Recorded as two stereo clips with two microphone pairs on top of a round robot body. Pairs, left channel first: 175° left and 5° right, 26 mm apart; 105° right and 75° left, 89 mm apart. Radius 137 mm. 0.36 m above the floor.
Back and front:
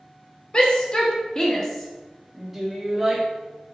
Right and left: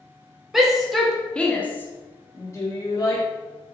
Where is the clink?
I don't hear a clink.